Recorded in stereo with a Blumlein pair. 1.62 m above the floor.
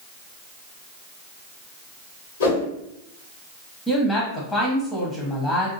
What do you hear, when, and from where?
2.4 s a whoosh: 60° left, 1.1 m
3.9 s a woman speaking: 15° left, 0.8 m